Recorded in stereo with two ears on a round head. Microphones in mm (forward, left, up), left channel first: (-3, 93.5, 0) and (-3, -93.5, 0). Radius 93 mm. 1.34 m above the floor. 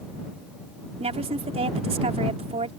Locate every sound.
1.0 s a woman speaking: 30° right (ahead or behind)